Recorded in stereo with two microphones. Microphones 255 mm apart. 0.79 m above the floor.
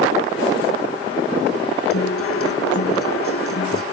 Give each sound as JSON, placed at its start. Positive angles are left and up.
{"t": 1.9, "sound": "a guitar", "side_deg": 60}